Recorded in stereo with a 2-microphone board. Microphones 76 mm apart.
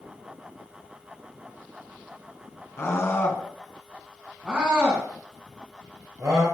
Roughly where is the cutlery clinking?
I don't hear cutlery clinking.